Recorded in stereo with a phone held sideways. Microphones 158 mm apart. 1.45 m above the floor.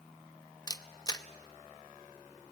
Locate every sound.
0.7 s a camera shutter: 25° left (ahead or behind), 0.8 m